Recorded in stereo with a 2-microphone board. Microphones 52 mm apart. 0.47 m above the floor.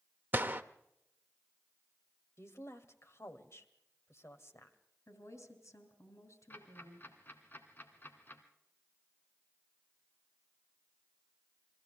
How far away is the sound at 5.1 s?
About 4 m.